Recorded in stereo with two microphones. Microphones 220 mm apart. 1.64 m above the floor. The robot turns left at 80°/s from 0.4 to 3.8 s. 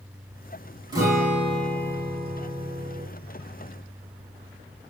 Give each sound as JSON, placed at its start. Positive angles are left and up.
{"t": 0.9, "sound": "a guitar", "azimuth_deg": -160, "distance_m": 1.6}